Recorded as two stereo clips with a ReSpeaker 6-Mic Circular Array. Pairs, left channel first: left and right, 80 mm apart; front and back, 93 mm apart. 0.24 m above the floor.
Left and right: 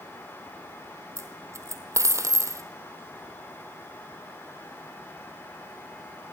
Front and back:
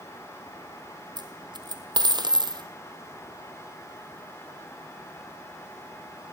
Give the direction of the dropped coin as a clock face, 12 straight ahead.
5 o'clock.